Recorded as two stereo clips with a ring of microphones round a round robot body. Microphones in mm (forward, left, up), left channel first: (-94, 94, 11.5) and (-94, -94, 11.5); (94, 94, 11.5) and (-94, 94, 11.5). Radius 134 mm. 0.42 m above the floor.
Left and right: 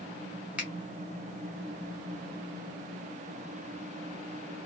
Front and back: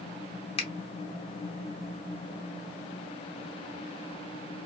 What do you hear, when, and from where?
0.6 s a finger snap: 10° right, 0.8 m